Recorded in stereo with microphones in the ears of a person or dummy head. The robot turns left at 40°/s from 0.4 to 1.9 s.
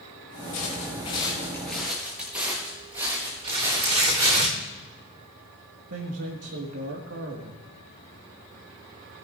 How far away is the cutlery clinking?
I don't hear cutlery clinking.